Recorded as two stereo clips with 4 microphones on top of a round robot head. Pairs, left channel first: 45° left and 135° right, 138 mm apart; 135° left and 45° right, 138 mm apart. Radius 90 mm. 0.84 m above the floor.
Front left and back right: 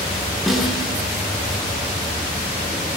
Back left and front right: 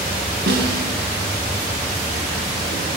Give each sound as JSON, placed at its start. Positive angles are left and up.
{"t": 0.5, "sound": "a snare drum", "azimuth_deg": -45, "distance_m": 6.5}